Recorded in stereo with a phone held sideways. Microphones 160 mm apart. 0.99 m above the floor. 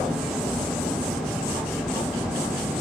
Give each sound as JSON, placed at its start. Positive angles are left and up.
{"t": 0.0, "sound": "a fan", "side_deg": -5, "distance_m": 7.0}